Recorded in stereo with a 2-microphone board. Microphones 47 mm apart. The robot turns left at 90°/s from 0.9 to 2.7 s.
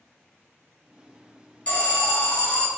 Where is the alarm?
130° left, 0.8 m; by 2.7 s 40° left, 0.8 m.